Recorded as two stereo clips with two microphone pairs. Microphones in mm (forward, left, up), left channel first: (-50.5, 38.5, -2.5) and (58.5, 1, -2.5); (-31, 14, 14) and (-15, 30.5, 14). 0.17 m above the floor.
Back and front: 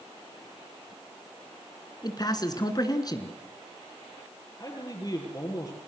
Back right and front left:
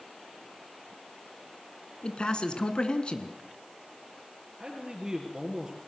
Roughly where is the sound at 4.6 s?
Left.